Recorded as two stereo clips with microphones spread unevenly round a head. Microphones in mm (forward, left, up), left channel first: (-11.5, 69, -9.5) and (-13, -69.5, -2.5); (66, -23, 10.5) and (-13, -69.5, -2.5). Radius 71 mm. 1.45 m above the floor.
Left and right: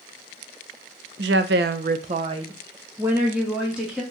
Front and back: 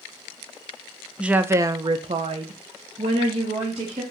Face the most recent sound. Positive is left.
turn(degrees=-175)